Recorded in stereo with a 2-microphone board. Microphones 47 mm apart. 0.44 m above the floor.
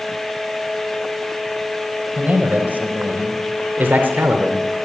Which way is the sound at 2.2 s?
35° right (ahead or behind).